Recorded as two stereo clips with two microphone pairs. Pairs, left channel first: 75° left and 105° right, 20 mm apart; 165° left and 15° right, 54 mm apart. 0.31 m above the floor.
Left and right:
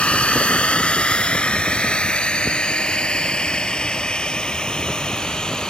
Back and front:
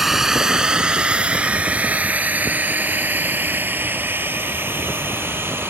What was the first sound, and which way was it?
A drone, 70° left.